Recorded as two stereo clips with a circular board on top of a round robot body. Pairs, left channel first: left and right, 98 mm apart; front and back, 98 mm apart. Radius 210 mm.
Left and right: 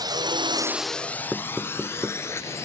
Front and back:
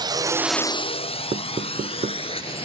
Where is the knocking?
170° right.